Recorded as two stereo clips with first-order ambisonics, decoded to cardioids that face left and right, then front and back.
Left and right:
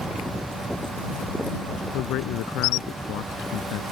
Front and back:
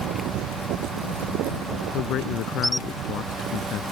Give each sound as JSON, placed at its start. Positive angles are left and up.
{"t": 1.9, "sound": "a man speaking", "azimuth_deg": 50}